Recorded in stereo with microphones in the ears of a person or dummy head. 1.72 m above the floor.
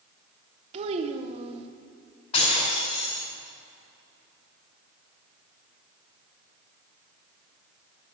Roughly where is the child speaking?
Right.